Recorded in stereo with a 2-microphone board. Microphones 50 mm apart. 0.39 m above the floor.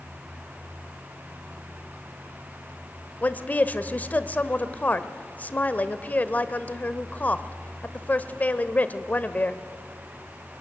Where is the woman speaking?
35° left (ahead or behind), 1.1 m.